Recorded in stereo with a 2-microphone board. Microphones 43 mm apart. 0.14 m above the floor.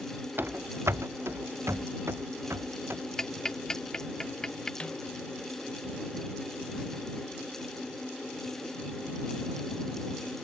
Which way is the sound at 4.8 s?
25° left (ahead or behind).